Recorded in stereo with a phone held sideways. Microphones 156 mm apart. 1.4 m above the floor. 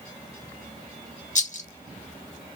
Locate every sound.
1.4 s a rattle: 55° left (ahead or behind), 0.5 m